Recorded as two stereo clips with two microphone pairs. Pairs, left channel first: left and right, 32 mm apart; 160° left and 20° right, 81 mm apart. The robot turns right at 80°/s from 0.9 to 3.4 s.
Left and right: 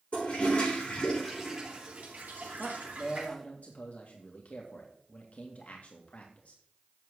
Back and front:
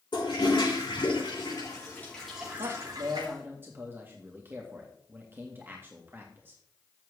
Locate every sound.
0.1 s a toilet flushing: 140° left, 5.5 m; by 3.3 s 30° right, 5.5 m
2.6 s a man speaking: 20° right, 1.9 m; by 6.6 s 45° left, 1.9 m